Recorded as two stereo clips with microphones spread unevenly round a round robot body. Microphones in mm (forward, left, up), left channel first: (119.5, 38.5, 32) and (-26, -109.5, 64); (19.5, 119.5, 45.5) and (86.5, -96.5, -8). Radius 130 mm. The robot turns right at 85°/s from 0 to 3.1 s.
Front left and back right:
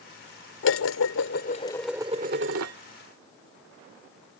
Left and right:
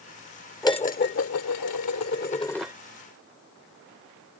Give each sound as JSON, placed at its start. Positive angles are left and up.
{"t": 0.6, "sound": "dishes clattering", "azimuth_deg": 30}